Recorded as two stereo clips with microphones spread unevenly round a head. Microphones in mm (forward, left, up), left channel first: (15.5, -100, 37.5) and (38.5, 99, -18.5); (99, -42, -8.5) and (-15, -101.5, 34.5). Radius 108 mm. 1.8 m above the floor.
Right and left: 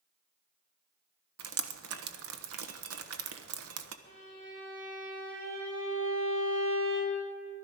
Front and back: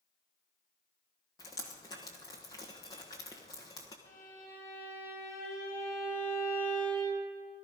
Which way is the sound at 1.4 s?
110° left.